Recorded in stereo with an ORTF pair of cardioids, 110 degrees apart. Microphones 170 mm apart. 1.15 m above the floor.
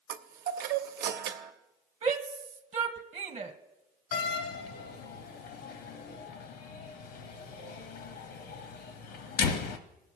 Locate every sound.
0.1 s a chime: 70° right, 0.9 m
2.0 s a shout: 40° right, 1.2 m
4.1 s a door slam: 65° left, 0.9 m